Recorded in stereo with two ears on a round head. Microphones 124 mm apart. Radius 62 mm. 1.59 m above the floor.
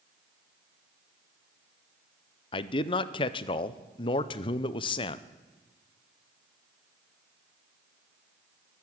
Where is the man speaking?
35° left (ahead or behind), 0.5 m.